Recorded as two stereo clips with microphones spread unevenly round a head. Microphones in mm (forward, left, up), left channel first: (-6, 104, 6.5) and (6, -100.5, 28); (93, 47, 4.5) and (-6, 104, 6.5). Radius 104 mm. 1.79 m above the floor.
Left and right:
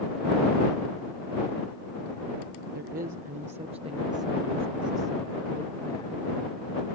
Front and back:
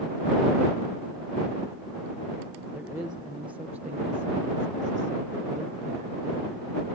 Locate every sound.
2.7 s a woman speaking: 130° right; by 6.9 s 150° left